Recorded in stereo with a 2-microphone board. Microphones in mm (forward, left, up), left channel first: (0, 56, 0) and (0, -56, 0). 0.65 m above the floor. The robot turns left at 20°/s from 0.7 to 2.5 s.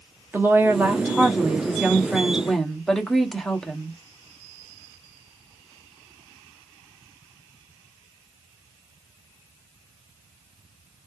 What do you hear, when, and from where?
0.3 s a woman speaking: 150° right, 0.8 m; by 4.0 s 175° left, 0.8 m